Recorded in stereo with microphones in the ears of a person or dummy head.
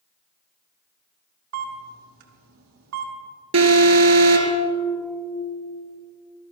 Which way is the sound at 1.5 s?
80° right.